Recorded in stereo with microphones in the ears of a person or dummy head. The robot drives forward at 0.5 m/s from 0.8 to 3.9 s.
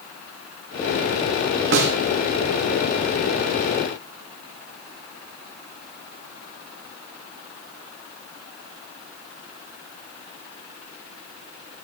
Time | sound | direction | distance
1.7 | a snare drum | 65° right (ahead or behind) | 2.0 m